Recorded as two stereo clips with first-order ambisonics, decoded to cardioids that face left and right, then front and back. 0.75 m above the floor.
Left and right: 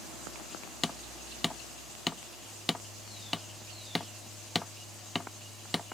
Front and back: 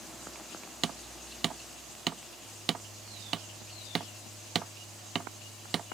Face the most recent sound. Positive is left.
turn(degrees=165)